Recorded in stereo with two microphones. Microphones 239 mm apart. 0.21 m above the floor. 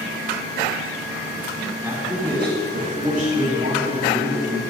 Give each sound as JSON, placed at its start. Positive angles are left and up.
{"t": 1.8, "sound": "a man speaking", "side_deg": -10, "distance_m": 2.0}